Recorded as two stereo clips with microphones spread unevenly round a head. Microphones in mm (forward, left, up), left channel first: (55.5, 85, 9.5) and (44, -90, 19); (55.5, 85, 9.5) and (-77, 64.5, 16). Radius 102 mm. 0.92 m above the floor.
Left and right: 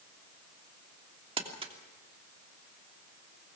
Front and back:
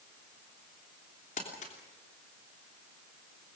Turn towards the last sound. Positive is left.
turn(degrees=-35)